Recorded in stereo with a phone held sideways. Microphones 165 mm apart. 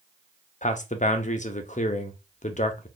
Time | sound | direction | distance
0.6 | a man speaking | 50° left (ahead or behind) | 0.6 m